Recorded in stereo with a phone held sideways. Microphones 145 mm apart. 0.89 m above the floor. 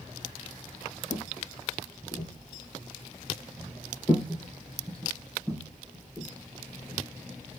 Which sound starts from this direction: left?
Footsteps, at 1.1 s.